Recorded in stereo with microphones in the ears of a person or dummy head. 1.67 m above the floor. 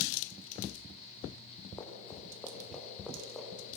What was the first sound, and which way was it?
Running footsteps, 15° left (ahead or behind).